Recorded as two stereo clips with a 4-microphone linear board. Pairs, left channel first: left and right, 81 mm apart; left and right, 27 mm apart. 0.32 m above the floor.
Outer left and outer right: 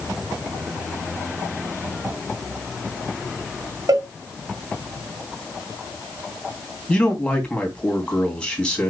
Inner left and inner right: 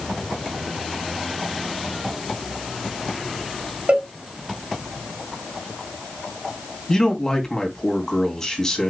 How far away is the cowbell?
About 3 m.